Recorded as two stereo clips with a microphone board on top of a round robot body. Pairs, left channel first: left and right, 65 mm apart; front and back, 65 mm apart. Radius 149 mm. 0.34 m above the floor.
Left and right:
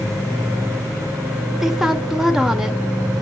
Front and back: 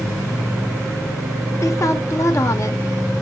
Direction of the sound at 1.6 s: 10° right.